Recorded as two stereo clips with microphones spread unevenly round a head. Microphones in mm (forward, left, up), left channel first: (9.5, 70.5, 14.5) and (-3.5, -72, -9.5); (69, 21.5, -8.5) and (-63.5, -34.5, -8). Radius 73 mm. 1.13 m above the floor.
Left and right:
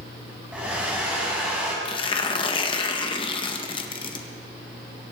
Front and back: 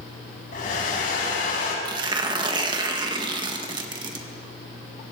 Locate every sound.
0.5 s a hair dryer: 10° right, 6 m
1.9 s tearing paper: 145° left, 1.7 m